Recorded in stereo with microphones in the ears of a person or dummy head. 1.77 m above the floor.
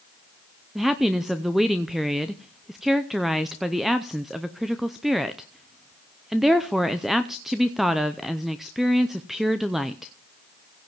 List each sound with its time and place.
0.8 s a woman speaking: centre (ahead or behind), 0.6 m